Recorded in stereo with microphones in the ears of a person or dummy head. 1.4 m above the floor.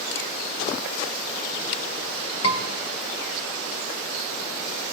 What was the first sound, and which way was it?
A scream, 75° left (ahead or behind).